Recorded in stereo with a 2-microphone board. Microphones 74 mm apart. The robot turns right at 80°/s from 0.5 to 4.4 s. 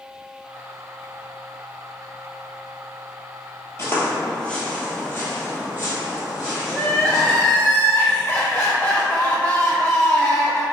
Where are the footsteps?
35° left (ahead or behind), 1.0 m; by 7.4 s 50° left (ahead or behind), 2 m.